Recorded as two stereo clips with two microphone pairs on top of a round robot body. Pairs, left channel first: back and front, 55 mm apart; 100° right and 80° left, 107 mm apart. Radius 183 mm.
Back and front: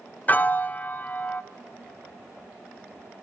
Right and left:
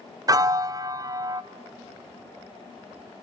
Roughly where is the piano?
Behind left.